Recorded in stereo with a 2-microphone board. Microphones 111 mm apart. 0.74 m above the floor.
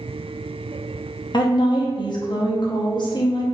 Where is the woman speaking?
45° left (ahead or behind), 0.7 m.